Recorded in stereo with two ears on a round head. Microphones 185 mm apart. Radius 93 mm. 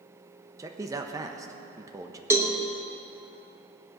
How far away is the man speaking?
About 1.1 m.